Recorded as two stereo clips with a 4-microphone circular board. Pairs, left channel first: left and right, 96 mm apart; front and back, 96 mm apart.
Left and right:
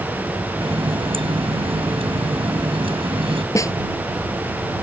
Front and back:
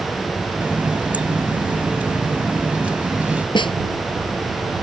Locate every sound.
0.6 s a running tap: 105° right
3.5 s a snare drum: 35° left